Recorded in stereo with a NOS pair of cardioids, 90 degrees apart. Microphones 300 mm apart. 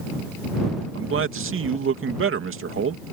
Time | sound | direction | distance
0.9 | a man speaking | 45° right | ?